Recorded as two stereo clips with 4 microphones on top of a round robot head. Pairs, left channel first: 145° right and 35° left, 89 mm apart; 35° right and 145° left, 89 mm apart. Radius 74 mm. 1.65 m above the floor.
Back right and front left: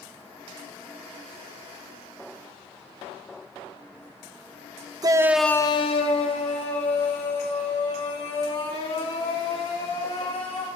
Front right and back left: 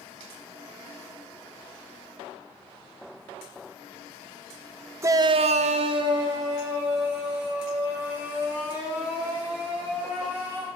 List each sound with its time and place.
5.0 s a shout: 85° left, 0.9 m; by 10.7 s 140° right, 7.5 m